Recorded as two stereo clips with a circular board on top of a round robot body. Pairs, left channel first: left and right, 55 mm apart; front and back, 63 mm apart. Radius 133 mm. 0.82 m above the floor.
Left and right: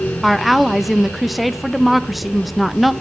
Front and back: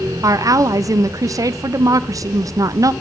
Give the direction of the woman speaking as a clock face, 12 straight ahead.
6 o'clock.